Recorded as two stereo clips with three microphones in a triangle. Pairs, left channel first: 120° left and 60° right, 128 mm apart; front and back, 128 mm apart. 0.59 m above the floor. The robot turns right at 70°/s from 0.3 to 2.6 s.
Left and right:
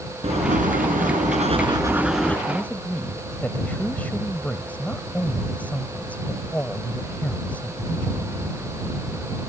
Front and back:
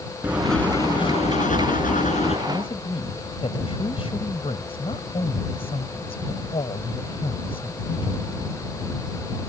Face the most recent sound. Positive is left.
turn(degrees=40)